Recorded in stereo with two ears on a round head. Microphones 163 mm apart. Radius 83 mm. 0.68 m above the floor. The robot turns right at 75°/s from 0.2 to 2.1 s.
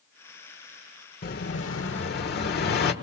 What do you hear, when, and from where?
1.2 s an explosion: 50° left, 1.5 m; by 2.9 s 115° left, 1.5 m